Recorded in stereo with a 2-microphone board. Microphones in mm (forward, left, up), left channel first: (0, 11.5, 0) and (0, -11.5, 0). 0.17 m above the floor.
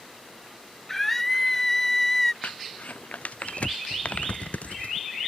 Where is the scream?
10° left (ahead or behind).